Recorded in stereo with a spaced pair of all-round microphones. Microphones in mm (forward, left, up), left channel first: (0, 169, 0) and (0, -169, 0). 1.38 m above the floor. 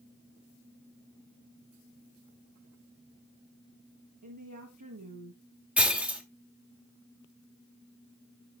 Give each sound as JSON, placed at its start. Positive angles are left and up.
{"t": 4.2, "sound": "a woman speaking", "side_deg": -65, "distance_m": 1.2}
{"t": 5.8, "sound": "breaking glass", "side_deg": -5, "distance_m": 1.2}